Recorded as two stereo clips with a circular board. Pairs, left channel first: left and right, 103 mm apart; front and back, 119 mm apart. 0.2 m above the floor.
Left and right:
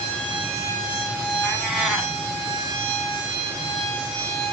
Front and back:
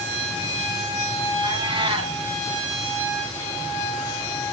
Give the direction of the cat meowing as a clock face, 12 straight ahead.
6 o'clock.